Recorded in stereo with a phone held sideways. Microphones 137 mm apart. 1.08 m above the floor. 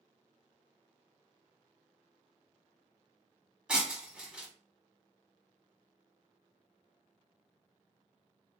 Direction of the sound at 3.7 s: 5° right (ahead or behind).